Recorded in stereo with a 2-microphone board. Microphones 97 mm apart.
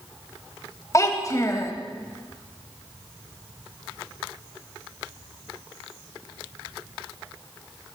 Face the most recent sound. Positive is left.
turn(degrees=35)  # may be behind; listen again after turning